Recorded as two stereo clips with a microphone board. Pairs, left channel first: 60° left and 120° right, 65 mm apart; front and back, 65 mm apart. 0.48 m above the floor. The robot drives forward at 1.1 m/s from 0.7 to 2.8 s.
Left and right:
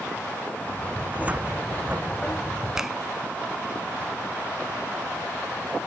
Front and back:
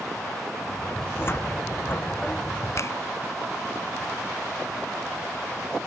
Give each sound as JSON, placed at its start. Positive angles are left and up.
{"t": 1.0, "sound": "a cupboard door", "azimuth_deg": -50}
{"t": 2.8, "sound": "a finger snap", "azimuth_deg": -35}